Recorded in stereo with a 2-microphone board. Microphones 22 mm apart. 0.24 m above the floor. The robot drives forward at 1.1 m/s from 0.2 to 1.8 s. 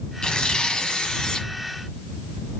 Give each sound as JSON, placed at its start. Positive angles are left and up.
{"t": 0.2, "sound": "tearing paper", "side_deg": 50, "distance_m": 1.9}